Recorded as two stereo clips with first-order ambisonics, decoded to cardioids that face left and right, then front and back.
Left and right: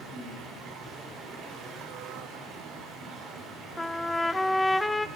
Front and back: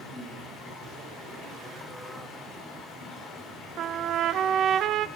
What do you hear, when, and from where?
0.0 s running water: 50° right, 4.5 m
3.8 s a trumpet: 175° left, 0.5 m